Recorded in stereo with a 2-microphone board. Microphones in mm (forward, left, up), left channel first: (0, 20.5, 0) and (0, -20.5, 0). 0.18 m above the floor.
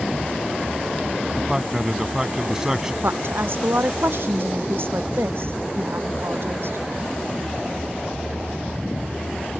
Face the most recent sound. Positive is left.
turn(degrees=-65)  # may be behind; listen again after turning